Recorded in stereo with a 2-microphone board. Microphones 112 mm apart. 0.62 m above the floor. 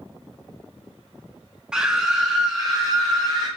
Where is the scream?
5° right (ahead or behind), 0.8 m.